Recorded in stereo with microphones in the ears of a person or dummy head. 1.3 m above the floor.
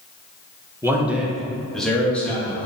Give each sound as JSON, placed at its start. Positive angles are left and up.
{"t": 0.8, "sound": "a man speaking", "side_deg": -15, "distance_m": 0.9}